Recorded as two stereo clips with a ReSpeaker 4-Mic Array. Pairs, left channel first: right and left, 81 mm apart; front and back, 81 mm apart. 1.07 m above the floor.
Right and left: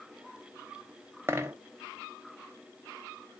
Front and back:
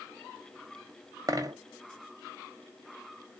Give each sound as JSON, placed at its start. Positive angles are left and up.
{"t": 1.3, "sound": "a dropped coin", "azimuth_deg": 145, "distance_m": 0.7}